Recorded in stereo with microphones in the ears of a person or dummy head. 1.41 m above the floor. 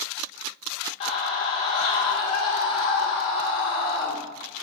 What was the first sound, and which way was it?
A scream, 35° left (ahead or behind).